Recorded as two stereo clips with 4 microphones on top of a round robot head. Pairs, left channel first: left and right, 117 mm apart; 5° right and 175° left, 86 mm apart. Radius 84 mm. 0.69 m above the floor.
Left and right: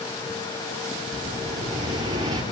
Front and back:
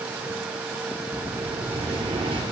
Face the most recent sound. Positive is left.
turn(degrees=-145)